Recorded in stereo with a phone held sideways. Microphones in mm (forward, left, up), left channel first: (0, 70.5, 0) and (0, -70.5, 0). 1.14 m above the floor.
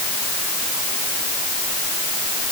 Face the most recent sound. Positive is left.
No sound to turn to.